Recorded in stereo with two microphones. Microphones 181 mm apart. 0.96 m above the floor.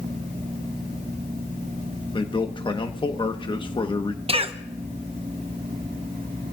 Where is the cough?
30° right (ahead or behind), 0.8 m.